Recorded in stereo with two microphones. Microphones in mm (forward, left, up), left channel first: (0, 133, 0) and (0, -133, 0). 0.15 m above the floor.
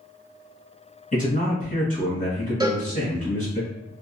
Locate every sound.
1.1 s a man speaking: 30° left (ahead or behind), 1.7 m
2.6 s a cowbell: 15° right (ahead or behind), 0.6 m